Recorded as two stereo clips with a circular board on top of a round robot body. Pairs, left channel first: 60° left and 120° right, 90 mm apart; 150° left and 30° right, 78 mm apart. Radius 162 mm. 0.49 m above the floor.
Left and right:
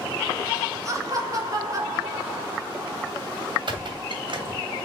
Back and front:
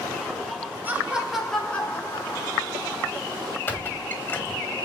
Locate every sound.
0.8 s laughter: 85° right, 1.5 m; by 3.1 s straight behind, 2.5 m
3.7 s a squeak: 150° right, 1.3 m